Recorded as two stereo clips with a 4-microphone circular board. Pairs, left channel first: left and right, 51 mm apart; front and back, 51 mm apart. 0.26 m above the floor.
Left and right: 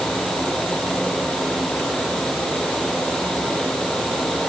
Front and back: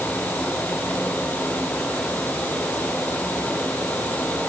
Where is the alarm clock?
No alarm clock in this recording.